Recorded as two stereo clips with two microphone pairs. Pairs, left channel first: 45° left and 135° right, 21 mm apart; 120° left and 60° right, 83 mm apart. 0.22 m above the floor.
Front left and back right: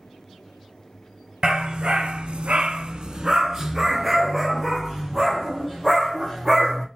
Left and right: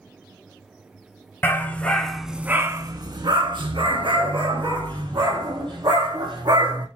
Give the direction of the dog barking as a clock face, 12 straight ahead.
6 o'clock.